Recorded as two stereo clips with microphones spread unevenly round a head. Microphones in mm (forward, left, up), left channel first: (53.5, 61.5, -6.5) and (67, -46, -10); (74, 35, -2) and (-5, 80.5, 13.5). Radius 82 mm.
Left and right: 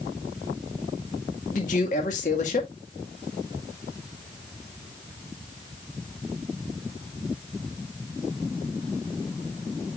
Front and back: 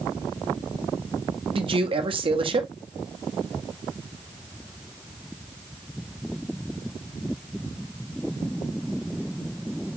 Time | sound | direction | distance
1.5 | a man speaking | 130° left | 1.8 m